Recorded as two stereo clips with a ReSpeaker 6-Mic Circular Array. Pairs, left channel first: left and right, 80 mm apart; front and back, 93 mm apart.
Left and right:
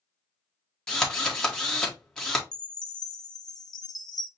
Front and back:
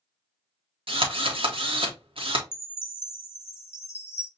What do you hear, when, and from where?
0.9 s a drill: 170° left, 1.2 m
2.5 s a chime: 60° left, 0.6 m